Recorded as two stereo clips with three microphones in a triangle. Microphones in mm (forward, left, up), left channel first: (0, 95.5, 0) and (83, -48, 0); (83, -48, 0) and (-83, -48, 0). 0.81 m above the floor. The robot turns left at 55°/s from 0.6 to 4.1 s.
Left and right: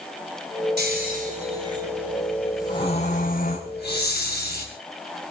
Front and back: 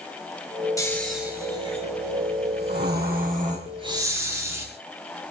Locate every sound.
0.8 s snoring: 70° right, 5 m; by 4.7 s 105° left, 5 m